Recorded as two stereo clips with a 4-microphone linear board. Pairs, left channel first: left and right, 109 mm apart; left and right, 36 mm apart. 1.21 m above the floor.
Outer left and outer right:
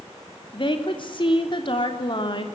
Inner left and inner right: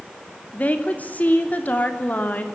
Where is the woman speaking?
50° left (ahead or behind), 3 m.